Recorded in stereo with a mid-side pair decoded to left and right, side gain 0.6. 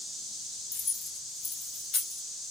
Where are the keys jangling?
65° left, 2.0 m.